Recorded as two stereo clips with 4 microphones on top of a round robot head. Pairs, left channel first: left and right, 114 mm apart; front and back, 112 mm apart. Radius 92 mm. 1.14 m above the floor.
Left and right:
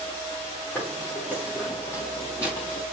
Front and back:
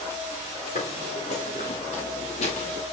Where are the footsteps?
10° left, 6.5 m; by 2.8 s 20° left, 6 m.